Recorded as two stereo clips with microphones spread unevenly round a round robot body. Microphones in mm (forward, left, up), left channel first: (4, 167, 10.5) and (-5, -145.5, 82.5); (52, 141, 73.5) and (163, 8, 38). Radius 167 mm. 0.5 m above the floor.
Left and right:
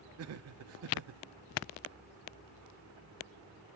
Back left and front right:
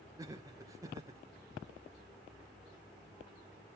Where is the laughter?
75° right, 0.9 m.